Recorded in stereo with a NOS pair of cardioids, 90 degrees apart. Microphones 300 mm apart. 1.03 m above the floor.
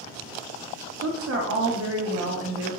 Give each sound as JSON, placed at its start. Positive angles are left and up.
{"t": 1.0, "sound": "a woman speaking", "azimuth_deg": -50, "distance_m": 0.8}